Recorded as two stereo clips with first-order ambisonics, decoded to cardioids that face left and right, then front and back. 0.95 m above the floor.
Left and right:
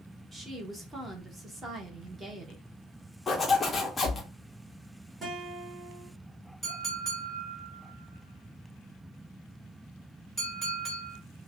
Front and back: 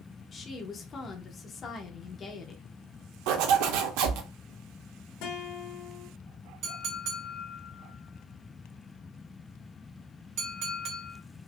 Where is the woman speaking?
30° right, 0.7 m.